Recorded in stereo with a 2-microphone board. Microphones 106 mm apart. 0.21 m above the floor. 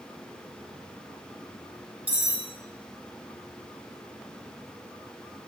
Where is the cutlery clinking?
15° right (ahead or behind), 0.9 m.